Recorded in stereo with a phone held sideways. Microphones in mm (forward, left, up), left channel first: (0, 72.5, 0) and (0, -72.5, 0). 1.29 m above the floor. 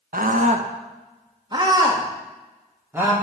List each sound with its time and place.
0.1 s a scream: 75° right (ahead or behind), 1.0 m; by 3.1 s 15° right (ahead or behind), 2.5 m